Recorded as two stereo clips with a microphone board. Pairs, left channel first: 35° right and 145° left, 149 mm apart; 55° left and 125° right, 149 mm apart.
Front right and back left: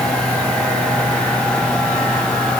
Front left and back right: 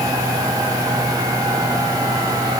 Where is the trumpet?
I don't hear a trumpet.